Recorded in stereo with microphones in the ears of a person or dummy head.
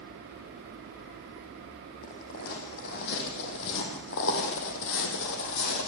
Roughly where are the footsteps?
Left.